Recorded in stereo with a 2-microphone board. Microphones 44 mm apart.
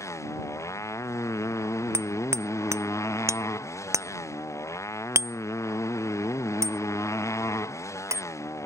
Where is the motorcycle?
80° left.